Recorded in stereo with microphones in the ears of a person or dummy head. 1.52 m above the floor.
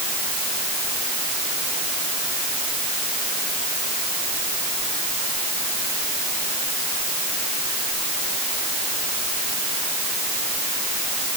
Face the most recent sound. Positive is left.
No sound to turn to.